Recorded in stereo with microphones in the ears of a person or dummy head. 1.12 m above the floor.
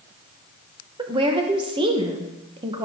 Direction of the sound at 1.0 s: 30° right (ahead or behind).